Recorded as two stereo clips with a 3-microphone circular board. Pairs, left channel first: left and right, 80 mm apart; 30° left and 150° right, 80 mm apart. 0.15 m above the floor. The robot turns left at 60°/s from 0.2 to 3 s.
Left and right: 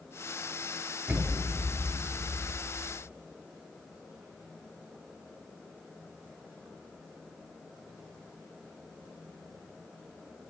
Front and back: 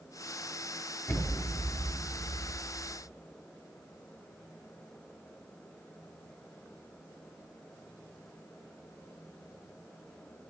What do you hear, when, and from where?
1.1 s an explosion: 20° right, 2.5 m; by 2.9 s 130° right, 2.5 m